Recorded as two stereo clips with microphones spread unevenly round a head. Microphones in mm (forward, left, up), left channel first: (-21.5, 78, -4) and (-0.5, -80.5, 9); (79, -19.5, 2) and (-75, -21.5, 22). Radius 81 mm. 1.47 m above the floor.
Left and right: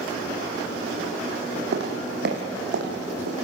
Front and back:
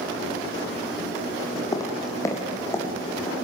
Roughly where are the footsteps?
Ahead right.